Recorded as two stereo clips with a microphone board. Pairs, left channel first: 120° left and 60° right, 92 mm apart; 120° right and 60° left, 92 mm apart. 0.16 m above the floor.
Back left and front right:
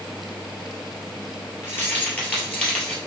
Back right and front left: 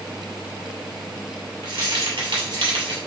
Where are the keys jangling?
60° left, 1.9 m; by 3.0 s 45° left, 2.5 m.